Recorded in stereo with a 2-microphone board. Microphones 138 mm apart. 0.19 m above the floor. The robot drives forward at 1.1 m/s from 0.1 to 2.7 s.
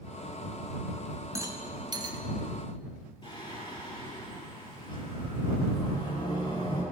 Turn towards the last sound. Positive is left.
turn(degrees=35)  # may be behind; listen again after turning